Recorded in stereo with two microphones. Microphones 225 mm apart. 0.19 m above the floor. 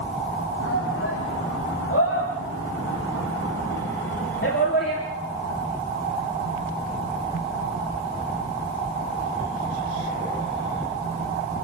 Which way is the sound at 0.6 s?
75° left (ahead or behind).